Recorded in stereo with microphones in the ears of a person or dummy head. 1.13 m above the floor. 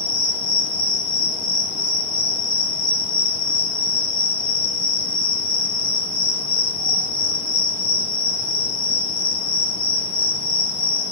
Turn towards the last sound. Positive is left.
turn(degrees=20)  # may be behind; listen again after turning